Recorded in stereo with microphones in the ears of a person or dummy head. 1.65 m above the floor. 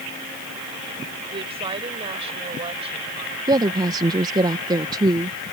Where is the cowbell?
I don't hear a cowbell.